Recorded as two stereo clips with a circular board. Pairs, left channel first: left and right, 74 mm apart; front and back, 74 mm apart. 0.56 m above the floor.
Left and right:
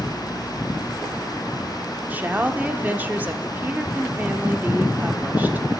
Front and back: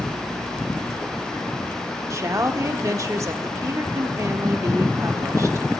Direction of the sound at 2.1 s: 150° right.